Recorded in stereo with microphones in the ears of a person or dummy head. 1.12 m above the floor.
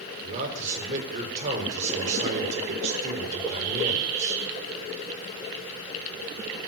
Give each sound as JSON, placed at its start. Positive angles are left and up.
{"t": 0.2, "sound": "a man speaking", "side_deg": -40, "distance_m": 4.0}